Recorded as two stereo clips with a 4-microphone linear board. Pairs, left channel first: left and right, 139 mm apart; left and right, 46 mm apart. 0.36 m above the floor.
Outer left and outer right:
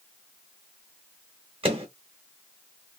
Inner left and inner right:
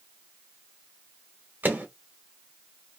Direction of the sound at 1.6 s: 45° right (ahead or behind).